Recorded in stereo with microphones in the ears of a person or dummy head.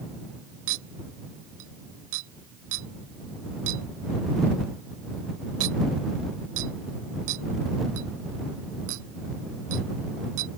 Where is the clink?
70° right (ahead or behind).